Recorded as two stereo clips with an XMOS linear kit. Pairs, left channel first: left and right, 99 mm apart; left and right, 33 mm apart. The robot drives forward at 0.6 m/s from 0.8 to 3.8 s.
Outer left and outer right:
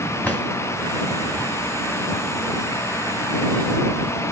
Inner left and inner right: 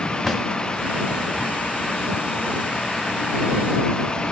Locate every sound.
0.2 s a drawer: 15° left (ahead or behind), 1.4 m